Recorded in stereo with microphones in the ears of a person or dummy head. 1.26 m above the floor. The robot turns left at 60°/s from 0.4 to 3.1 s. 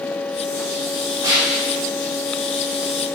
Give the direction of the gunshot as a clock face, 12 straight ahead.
5 o'clock.